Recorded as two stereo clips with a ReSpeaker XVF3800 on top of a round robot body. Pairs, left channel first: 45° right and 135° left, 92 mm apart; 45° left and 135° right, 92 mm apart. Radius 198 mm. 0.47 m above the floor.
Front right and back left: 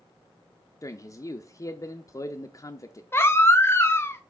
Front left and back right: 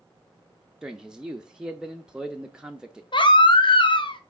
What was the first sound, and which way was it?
A man speaking, 60° right.